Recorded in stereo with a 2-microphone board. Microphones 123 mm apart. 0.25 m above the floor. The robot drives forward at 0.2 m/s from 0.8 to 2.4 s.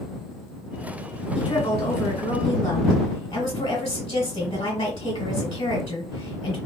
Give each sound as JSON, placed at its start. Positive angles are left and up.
{"t": 1.4, "sound": "a woman speaking", "side_deg": 55, "distance_m": 1.4}